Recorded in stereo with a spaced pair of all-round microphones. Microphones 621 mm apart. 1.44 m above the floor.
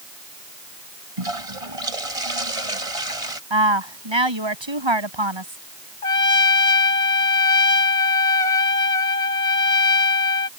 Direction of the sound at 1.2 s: 65° right (ahead or behind).